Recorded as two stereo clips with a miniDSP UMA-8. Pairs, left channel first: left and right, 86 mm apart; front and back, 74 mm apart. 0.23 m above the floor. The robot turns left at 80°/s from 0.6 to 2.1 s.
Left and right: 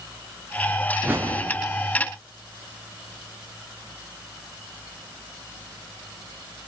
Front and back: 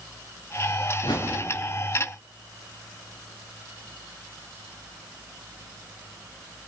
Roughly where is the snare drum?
No snare drum in this recording.